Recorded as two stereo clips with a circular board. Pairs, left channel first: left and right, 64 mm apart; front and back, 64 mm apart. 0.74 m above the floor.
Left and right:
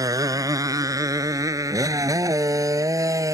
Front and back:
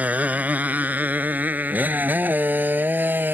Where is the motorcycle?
115° right; by 3.3 s 120° right.